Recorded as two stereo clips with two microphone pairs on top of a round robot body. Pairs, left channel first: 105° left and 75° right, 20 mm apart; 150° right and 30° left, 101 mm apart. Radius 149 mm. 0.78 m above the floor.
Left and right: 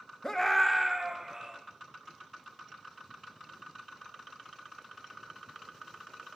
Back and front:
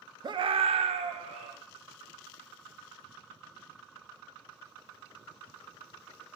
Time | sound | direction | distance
0.2 | a scream | 70° left | 0.8 m